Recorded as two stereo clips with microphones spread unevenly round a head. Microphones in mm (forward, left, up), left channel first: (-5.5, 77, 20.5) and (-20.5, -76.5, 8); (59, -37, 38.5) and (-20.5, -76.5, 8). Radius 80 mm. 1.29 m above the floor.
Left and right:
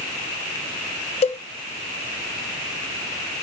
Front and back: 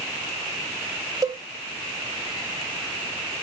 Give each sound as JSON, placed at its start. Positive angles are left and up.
{"t": 1.2, "sound": "a cowbell", "azimuth_deg": 125, "distance_m": 0.9}